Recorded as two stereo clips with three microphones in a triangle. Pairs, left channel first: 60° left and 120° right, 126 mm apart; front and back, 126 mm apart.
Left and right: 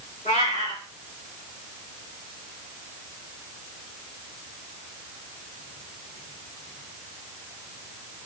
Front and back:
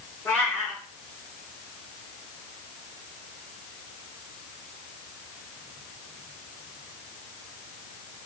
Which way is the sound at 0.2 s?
75° left.